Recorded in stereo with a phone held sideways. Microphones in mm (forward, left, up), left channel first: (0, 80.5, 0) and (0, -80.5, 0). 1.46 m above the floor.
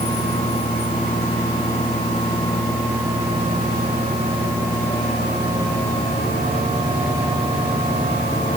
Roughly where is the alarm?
No alarm in this recording.